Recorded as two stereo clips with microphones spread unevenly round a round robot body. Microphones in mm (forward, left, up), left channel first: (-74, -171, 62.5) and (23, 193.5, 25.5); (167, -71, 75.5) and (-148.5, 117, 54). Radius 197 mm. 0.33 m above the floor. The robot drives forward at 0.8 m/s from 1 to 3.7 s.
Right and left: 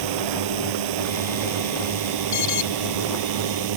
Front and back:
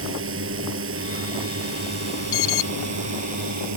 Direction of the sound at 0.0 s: 95° left.